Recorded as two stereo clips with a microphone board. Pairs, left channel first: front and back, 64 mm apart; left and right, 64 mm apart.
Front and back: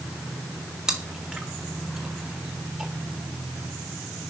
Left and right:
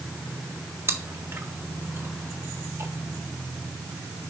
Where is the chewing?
105° right, 1.4 m.